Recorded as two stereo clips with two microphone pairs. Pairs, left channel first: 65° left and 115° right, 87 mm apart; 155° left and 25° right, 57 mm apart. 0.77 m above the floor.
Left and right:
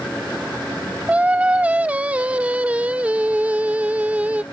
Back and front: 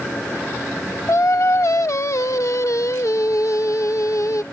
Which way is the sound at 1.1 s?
175° left.